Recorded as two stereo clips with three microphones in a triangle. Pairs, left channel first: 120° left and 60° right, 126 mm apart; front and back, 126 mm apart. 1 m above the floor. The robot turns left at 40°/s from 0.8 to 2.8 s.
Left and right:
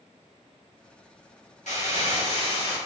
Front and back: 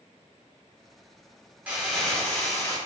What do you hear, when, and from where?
1.7 s crumpling: 100° left, 3 m; by 2.8 s 60° left, 3 m